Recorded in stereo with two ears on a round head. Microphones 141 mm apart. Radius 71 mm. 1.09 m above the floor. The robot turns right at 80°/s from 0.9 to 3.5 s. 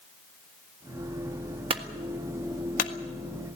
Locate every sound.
1.7 s a clunk: 35° right (ahead or behind), 1.5 m; by 2.9 s 60° left (ahead or behind), 1.5 m